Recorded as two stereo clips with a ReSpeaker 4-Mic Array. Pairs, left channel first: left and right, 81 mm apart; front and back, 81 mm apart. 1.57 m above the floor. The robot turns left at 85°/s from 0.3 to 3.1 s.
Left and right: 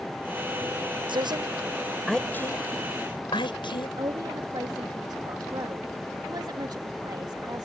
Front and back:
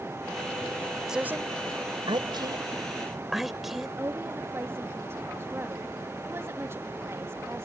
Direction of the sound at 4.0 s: 120° right.